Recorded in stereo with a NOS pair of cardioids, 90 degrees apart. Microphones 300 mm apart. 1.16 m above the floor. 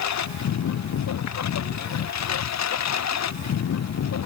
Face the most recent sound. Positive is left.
turn(degrees=60)